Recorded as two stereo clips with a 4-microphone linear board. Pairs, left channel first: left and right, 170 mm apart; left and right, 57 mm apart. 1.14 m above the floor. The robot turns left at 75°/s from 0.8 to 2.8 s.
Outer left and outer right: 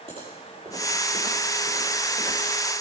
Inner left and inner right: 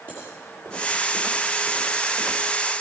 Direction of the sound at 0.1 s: 30° right (ahead or behind).